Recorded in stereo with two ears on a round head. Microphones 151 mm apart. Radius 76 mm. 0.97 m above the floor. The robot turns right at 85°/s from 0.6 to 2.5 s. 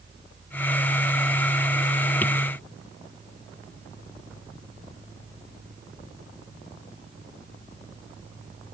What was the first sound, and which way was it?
Only background noise.